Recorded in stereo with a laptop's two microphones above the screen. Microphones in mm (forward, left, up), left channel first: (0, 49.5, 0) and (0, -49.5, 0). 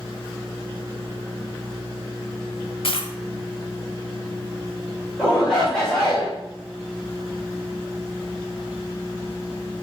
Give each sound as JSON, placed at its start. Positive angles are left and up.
{"t": 2.8, "sound": "a dropped coin", "side_deg": 70, "distance_m": 1.3}
{"t": 5.2, "sound": "a shout", "side_deg": 5, "distance_m": 3.5}